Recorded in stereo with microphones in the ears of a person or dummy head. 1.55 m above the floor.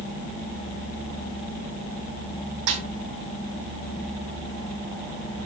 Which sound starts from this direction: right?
A snare drum, at 2.7 s.